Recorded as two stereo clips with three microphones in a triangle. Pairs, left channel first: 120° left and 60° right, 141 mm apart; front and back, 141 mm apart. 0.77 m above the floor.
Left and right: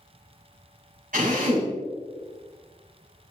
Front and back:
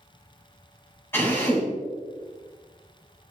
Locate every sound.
1.1 s a drill: 75° right, 3.5 m